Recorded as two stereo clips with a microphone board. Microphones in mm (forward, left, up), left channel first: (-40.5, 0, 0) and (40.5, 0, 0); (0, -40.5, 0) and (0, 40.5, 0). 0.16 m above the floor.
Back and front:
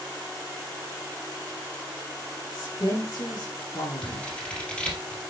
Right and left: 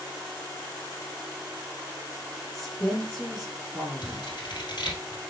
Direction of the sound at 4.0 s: 105° right.